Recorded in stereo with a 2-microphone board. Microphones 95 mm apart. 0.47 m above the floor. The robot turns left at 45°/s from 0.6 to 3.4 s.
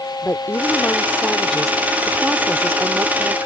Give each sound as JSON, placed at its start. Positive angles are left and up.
{"t": 0.2, "sound": "a woman speaking", "azimuth_deg": 50}